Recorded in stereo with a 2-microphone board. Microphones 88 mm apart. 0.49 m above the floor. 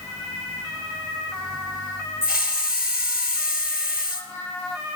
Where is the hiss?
10° right (ahead or behind), 2 m.